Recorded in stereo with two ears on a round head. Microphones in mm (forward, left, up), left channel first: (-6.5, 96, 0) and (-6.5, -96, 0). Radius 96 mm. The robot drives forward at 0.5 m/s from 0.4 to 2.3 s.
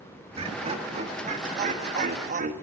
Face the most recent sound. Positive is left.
turn(degrees=-35)  # may be behind; listen again after turning